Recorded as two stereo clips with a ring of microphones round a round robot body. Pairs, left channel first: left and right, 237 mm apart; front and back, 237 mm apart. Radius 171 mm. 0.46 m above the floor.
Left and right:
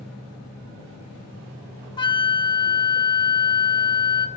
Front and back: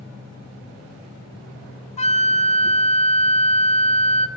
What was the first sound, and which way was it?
A flute, 35° left.